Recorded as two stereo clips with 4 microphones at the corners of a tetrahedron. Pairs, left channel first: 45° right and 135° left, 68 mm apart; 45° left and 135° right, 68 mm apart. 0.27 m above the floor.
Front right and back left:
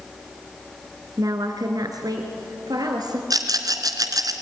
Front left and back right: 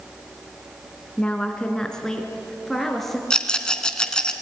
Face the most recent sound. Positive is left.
turn(degrees=125)